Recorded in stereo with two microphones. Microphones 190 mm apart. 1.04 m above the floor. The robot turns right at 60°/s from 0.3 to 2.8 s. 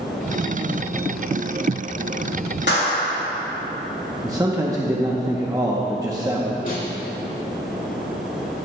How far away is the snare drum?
About 2 m.